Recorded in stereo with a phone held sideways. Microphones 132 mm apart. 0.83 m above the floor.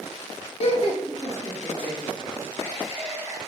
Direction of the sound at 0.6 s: 55° left (ahead or behind).